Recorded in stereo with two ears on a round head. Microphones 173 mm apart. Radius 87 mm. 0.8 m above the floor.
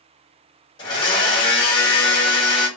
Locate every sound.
0.8 s a blender: 25° left (ahead or behind), 1.0 m